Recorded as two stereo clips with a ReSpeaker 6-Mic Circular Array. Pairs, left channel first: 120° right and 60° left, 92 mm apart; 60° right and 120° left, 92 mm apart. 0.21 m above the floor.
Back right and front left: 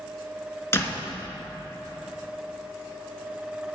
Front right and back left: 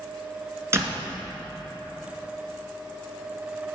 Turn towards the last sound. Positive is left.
turn(degrees=180)